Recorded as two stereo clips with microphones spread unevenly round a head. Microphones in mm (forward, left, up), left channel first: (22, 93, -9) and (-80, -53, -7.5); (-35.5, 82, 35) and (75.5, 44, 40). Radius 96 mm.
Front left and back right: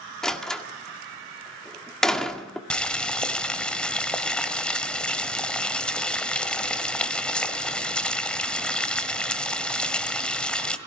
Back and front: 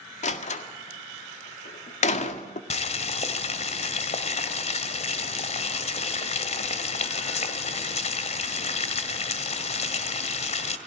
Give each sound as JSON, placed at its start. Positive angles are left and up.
{"t": 0.2, "sound": "a door slam", "azimuth_deg": 140, "distance_m": 1.8}
{"t": 2.7, "sound": "boiling", "azimuth_deg": 140, "distance_m": 1.7}